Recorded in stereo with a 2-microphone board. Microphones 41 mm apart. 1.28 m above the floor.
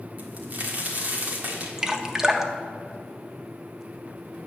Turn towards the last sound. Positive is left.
turn(degrees=-15)  # may be behind; listen again after turning